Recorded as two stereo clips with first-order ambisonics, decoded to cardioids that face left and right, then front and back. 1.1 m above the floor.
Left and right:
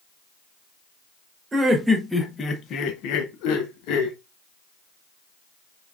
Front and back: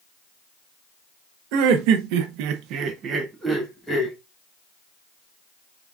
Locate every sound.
1.5 s laughter: 165° right, 1.1 m; by 4.2 s 85° left, 1.2 m